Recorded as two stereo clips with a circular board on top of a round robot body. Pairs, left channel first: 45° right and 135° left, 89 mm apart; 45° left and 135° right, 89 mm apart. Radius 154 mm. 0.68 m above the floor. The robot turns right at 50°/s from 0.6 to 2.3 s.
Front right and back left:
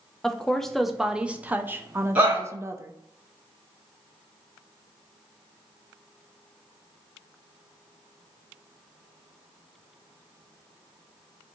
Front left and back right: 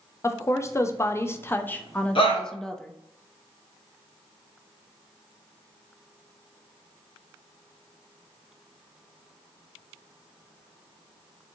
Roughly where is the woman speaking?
Ahead left.